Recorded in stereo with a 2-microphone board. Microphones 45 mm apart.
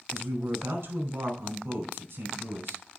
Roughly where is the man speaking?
Right.